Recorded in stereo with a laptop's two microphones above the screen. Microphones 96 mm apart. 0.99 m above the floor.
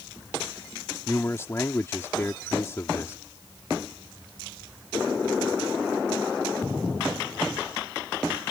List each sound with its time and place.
1.1 s a man speaking: 30° left (ahead or behind)